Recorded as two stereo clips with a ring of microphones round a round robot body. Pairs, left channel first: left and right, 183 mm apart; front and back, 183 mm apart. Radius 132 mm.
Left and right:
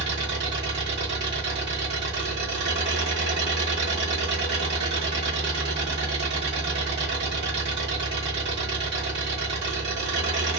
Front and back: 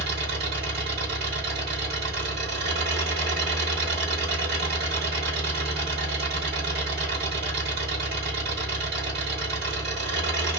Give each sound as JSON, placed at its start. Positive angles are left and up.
{"t": 0.0, "sound": "an engine running", "azimuth_deg": -130, "distance_m": 1.1}